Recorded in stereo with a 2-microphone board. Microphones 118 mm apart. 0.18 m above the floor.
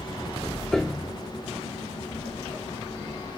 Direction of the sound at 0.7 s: 5° left (ahead or behind).